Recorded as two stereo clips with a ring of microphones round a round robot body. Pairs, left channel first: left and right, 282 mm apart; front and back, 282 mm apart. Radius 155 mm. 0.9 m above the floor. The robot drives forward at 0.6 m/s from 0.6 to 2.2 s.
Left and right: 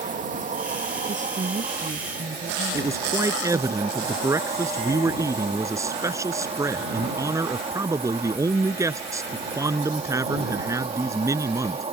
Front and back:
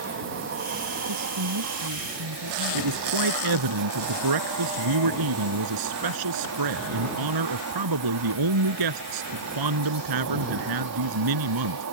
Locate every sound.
0.0 s an insect: 145° right; by 11.9 s 155° right
1.1 s a woman speaking: 155° right
2.7 s a man speaking: 170° right